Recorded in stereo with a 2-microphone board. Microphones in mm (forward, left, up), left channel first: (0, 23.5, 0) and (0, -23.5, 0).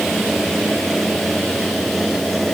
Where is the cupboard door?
I don't hear a cupboard door.